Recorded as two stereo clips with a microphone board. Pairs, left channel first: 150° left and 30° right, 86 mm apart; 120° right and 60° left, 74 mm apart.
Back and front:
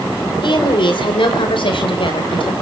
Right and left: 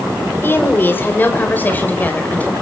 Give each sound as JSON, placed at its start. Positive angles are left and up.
{"t": 0.4, "sound": "a woman speaking", "azimuth_deg": 180, "distance_m": 4.0}